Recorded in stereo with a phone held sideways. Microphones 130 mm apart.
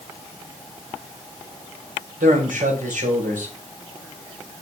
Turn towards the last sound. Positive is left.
turn(degrees=-85)